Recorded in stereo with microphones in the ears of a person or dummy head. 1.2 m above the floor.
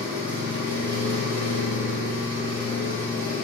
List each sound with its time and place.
0.0 s an engine running: 50° right (ahead or behind), 0.8 m